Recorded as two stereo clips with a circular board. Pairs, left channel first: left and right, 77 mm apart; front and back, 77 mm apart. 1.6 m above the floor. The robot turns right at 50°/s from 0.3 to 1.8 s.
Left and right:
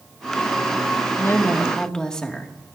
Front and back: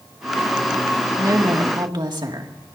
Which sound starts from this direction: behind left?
A woman speaking, at 1.2 s.